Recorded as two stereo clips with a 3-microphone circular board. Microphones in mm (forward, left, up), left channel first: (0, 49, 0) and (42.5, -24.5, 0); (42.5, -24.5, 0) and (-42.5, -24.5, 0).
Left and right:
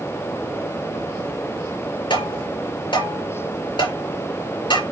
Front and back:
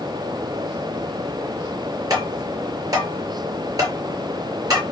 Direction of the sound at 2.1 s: 135° left.